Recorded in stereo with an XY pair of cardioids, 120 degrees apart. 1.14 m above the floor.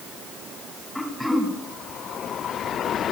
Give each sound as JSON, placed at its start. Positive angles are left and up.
{"t": 0.9, "sound": "throat clearing", "azimuth_deg": 10, "distance_m": 2.5}